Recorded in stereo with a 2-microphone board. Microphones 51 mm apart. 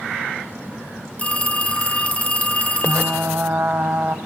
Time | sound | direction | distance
1.2 | a phone ringing | 25° left (ahead or behind) | 1.1 m
2.9 | frying | 40° right (ahead or behind) | 0.9 m